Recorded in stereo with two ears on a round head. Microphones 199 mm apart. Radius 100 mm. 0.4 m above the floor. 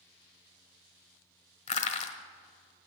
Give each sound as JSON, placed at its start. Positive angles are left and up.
{"t": 1.7, "sound": "crushing", "side_deg": 30, "distance_m": 1.2}